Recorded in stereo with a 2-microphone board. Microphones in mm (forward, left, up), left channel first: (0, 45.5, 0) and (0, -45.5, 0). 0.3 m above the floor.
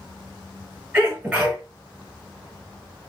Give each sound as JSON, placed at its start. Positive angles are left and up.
{"t": 0.9, "sound": "a sneeze", "side_deg": -10, "distance_m": 1.6}